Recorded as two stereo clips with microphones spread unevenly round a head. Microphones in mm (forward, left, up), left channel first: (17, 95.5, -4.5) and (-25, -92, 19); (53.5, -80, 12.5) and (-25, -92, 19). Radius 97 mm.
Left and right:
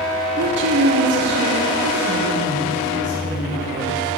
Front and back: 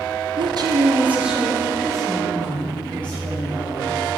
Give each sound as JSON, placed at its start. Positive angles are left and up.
{"t": 0.4, "sound": "a woman speaking", "azimuth_deg": -155, "distance_m": 1.0}